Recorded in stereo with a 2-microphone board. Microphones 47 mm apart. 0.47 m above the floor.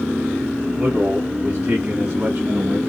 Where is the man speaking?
50° right (ahead or behind), 3 m; by 2.8 s 45° right (ahead or behind), 4.5 m.